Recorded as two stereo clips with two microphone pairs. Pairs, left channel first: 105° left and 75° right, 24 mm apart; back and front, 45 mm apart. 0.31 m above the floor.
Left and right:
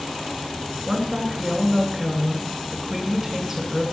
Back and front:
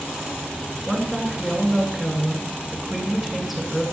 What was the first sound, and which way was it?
A woman speaking, 80° right.